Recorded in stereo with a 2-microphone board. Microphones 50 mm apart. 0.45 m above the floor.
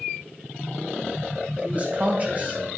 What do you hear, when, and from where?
1.6 s a man speaking: 35° right (ahead or behind), 2 m